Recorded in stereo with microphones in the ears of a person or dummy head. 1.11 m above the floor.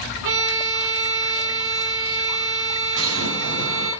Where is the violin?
65° right (ahead or behind), 5 m.